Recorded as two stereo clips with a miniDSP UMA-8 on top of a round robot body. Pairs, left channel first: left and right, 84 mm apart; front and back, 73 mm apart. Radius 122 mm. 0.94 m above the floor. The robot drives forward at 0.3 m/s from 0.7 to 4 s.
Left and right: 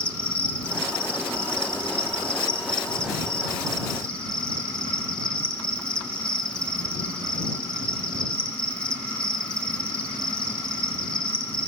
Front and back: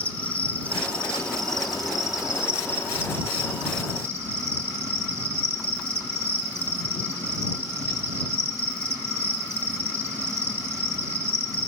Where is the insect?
40° left, 1.1 m; by 11.7 s 160° left, 1.2 m.